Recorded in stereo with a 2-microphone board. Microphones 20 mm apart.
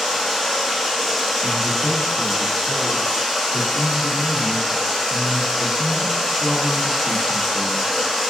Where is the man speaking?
30° left (ahead or behind), 1.3 m.